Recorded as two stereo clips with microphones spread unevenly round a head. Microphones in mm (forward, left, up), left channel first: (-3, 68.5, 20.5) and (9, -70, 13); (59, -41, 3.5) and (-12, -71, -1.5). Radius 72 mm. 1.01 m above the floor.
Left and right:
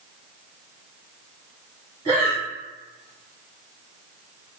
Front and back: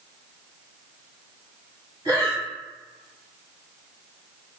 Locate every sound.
2.0 s breathing: 130° right, 1.9 m